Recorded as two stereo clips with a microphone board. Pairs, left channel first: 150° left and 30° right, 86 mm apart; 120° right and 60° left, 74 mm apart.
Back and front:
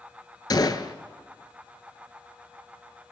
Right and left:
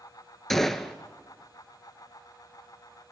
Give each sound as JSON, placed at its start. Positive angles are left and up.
{"t": 0.5, "sound": "a gunshot", "azimuth_deg": 155, "distance_m": 0.5}